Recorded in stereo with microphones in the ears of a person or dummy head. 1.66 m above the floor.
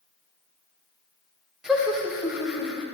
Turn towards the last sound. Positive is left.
turn(degrees=-5)  # may be behind; listen again after turning